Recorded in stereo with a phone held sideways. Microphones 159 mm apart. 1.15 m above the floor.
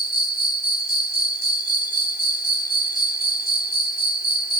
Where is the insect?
80° left.